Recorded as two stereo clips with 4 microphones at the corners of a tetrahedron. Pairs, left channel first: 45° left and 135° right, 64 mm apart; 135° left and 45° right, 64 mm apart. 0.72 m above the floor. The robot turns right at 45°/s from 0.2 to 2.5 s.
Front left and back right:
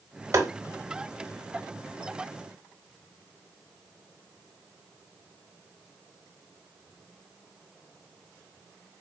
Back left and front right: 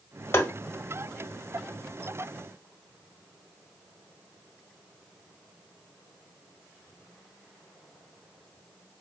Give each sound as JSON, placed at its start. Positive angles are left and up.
{"t": 0.3, "sound": "tapping", "azimuth_deg": 180, "distance_m": 0.9}